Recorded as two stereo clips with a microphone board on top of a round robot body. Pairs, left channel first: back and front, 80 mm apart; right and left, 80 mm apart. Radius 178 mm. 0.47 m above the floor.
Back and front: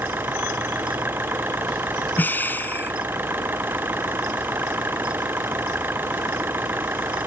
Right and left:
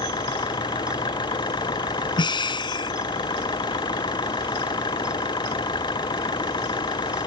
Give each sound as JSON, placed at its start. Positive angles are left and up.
{"t": 0.0, "sound": "an engine running", "azimuth_deg": -65}
{"t": 2.2, "sound": "breathing", "azimuth_deg": -115}